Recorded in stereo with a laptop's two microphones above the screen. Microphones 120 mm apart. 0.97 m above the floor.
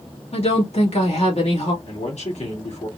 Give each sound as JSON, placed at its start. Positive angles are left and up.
{"t": 0.3, "sound": "a woman speaking", "side_deg": 70, "distance_m": 2.0}
{"t": 1.9, "sound": "a man speaking", "side_deg": 80, "distance_m": 2.5}